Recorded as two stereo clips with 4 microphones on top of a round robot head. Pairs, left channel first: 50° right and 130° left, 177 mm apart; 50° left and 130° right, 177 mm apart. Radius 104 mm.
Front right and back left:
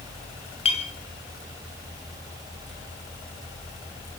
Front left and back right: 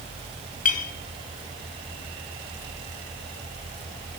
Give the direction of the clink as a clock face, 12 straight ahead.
12 o'clock.